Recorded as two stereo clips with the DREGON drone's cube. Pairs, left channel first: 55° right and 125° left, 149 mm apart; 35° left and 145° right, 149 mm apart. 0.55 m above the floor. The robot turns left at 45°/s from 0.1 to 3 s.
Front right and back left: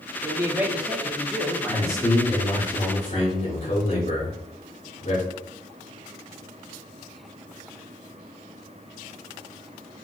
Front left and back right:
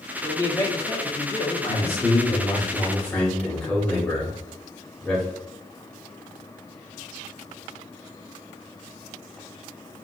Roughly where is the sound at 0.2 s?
Left.